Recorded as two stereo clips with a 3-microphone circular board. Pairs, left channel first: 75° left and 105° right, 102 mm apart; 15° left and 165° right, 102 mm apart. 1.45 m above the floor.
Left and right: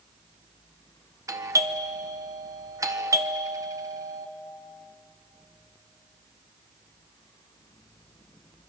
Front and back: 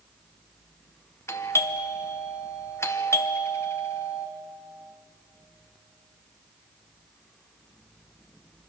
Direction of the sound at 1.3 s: 50° right.